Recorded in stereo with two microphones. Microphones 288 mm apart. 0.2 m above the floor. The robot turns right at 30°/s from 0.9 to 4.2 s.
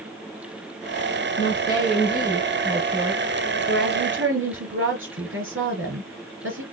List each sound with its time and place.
1.4 s a woman speaking: 140° left, 3.5 m; by 6.6 s 135° right, 3.5 m